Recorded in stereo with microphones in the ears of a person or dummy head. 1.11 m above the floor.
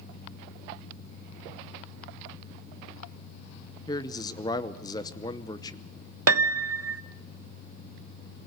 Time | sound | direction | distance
3.9 | a man speaking | 20° left (ahead or behind) | 0.7 m
6.3 | a piano | 75° right (ahead or behind) | 0.8 m